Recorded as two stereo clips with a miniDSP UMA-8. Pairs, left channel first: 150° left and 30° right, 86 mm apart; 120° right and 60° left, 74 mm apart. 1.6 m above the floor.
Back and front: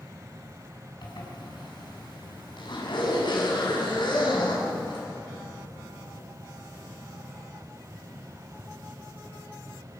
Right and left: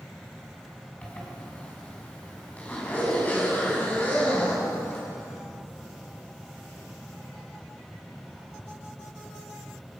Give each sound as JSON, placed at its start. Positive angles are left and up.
{"t": 1.0, "sound": "a zipper", "azimuth_deg": 170, "distance_m": 6.0}